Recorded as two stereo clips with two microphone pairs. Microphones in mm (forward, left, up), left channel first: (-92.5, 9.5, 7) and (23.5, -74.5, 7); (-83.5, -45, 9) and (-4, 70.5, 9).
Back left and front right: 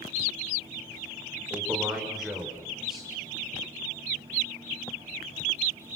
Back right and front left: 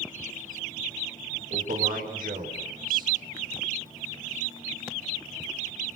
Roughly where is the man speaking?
Ahead left.